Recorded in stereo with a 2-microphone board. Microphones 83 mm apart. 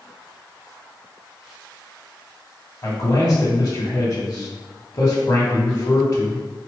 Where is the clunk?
I don't hear a clunk.